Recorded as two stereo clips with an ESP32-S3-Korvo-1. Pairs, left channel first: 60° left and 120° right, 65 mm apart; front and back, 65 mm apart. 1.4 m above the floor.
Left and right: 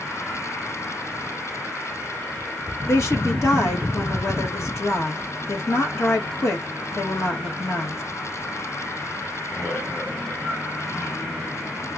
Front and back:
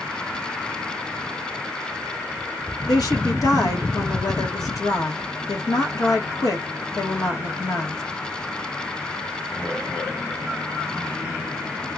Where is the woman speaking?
20° left, 1.6 m.